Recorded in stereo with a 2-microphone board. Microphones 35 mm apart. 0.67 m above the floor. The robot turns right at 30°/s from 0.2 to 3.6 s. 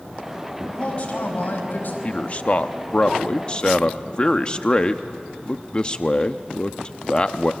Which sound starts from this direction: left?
A man speaking, at 2.0 s.